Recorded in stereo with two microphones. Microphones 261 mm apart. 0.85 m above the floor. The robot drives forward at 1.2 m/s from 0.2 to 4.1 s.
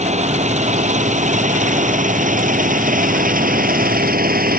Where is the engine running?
25° right (ahead or behind); by 4.6 s 35° right (ahead or behind).